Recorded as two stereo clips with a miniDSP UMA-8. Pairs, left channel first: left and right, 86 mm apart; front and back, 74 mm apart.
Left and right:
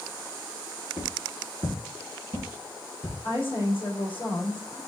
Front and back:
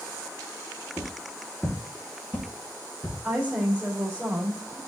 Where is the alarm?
I don't hear an alarm.